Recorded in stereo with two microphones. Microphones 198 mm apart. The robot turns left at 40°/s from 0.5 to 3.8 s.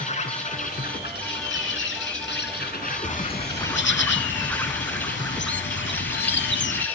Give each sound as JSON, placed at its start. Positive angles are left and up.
{"t": 0.0, "sound": "an insect", "azimuth_deg": 145, "distance_m": 1.8}
{"t": 3.0, "sound": "a bird", "azimuth_deg": 140, "distance_m": 0.6}